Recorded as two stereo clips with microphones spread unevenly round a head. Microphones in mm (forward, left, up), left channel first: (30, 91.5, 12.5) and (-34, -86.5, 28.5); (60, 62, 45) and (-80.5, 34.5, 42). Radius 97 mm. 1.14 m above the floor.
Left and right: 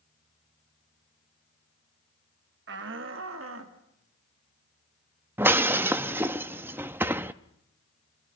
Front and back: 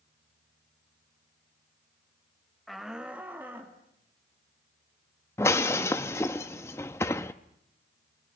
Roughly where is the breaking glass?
Ahead right.